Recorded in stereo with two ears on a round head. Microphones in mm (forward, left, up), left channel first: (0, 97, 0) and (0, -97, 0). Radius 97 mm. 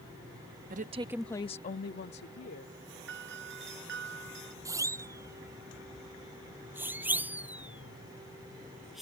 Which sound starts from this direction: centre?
A siren, at 4.7 s.